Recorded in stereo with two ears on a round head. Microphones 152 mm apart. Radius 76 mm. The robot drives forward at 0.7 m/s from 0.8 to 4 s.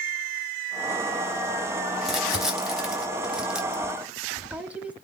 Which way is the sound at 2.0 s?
5° right (ahead or behind).